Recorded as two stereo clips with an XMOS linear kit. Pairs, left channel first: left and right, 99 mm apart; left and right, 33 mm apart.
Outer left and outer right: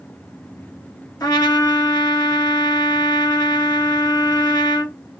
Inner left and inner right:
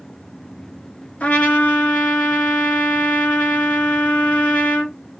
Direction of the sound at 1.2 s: 35° left (ahead or behind).